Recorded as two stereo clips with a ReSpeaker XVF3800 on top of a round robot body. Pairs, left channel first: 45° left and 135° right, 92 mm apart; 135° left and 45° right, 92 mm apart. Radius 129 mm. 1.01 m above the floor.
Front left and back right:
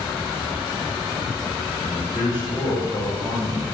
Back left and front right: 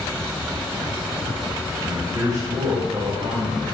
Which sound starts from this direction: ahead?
A man speaking, at 1.8 s.